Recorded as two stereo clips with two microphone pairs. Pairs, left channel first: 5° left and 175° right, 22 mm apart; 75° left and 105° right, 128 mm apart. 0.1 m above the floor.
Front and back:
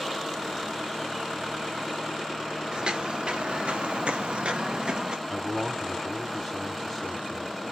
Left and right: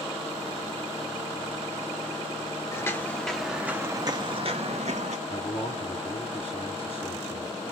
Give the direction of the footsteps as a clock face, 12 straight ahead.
7 o'clock.